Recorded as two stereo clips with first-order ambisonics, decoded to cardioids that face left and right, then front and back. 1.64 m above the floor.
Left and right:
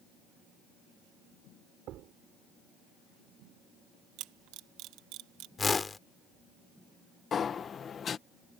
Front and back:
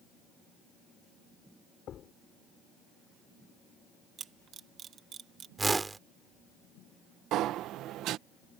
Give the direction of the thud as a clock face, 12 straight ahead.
2 o'clock.